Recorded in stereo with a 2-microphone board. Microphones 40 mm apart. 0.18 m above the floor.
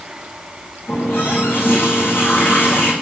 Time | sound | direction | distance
0.9 | a running tap | 70° left (ahead or behind) | 7 m